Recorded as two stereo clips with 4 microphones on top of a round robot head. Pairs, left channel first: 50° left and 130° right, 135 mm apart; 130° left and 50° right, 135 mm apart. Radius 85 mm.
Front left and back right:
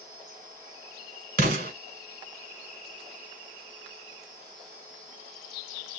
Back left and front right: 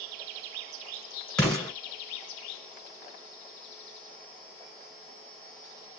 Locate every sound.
1.4 s an explosion: 150° right, 1.5 m